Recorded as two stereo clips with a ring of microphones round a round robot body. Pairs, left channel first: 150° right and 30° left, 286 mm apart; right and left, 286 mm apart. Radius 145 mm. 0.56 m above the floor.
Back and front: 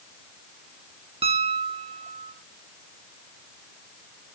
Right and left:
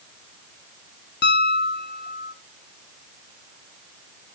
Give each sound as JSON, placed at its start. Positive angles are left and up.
{"t": 1.2, "sound": "a piano", "azimuth_deg": -40, "distance_m": 0.9}